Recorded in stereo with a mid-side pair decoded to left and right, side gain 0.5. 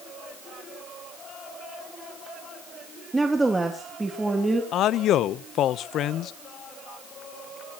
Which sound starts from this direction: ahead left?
A man speaking, at 4.7 s.